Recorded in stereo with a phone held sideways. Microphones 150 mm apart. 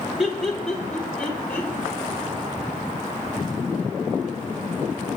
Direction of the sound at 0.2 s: 5° right (ahead or behind).